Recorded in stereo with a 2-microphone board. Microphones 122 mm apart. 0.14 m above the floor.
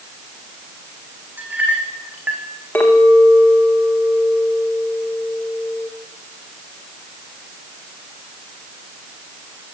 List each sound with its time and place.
1.4 s a clink: 15° right (ahead or behind), 5 m
2.8 s a clink: 15° left (ahead or behind), 7 m